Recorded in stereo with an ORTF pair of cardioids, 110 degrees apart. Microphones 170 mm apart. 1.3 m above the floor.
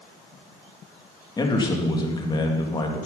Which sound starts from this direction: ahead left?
A man speaking, at 1.4 s.